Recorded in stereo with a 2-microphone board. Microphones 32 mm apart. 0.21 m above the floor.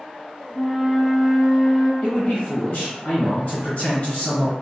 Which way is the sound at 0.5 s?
25° left (ahead or behind).